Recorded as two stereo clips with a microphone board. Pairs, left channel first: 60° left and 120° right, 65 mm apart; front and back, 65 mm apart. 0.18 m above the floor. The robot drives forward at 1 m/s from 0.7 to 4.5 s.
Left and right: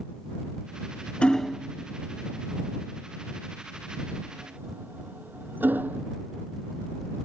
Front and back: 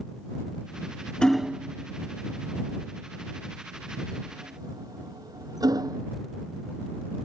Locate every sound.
1.2 s hammering: 35° left; by 6.1 s straight behind